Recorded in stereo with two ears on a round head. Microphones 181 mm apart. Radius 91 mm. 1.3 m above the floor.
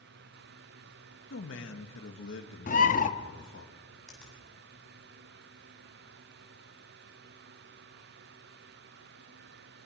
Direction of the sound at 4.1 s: 5° left (ahead or behind).